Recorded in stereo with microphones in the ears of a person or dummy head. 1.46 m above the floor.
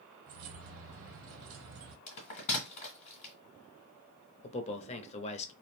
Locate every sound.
0.3 s keys jangling: 60° right (ahead or behind), 0.6 m
2.1 s a bell: 35° left (ahead or behind), 1.5 m
4.4 s a man speaking: 30° left (ahead or behind), 0.5 m